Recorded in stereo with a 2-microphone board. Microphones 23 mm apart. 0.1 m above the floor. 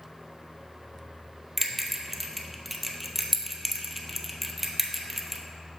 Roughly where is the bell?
Centre.